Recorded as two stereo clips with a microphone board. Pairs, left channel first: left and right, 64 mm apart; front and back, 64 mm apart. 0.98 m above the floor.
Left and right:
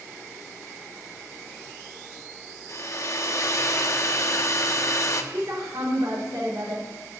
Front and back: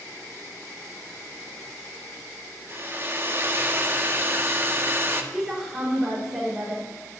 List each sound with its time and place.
2.7 s a hair dryer: 125° left, 0.9 m
5.3 s a woman speaking: 95° right, 4.5 m